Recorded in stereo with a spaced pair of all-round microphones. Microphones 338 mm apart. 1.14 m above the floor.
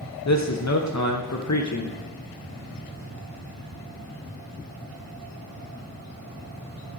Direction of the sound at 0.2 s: 55° left (ahead or behind).